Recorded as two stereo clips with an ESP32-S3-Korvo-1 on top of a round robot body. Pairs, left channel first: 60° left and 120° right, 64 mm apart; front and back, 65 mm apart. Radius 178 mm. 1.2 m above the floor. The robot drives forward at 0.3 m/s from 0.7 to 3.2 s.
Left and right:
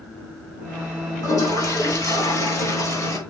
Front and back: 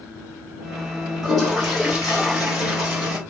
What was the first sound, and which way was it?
A toilet flushing, 85° left.